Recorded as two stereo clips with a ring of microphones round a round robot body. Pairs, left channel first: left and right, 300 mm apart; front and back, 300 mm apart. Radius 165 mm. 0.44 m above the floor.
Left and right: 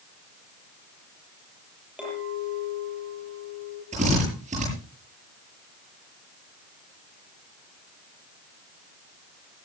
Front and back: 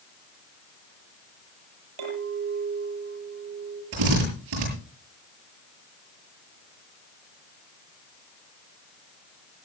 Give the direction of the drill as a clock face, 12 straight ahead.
5 o'clock.